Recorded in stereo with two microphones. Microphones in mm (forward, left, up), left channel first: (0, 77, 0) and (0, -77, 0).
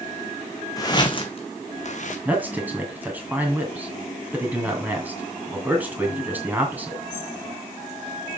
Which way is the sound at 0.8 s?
25° left (ahead or behind).